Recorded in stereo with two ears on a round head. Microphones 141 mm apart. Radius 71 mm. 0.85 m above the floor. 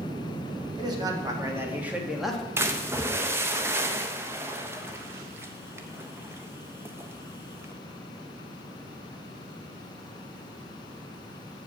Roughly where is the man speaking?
Right.